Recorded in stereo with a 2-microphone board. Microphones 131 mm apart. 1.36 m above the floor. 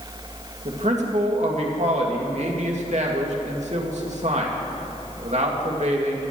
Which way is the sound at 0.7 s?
60° right (ahead or behind).